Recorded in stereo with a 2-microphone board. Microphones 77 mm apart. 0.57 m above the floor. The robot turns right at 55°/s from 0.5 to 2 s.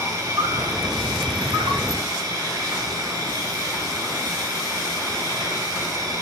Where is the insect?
135° right, 0.8 m; by 6.2 s 55° right, 0.8 m.